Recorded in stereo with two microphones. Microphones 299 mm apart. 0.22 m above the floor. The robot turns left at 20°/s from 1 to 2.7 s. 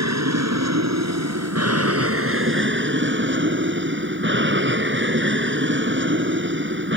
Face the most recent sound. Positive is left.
turn(degrees=-135)